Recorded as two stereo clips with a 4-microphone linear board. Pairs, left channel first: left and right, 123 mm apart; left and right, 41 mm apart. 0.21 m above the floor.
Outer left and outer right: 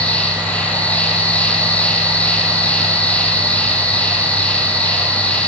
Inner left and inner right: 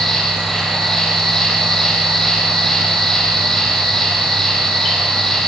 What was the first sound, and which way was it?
An insect, 10° left (ahead or behind).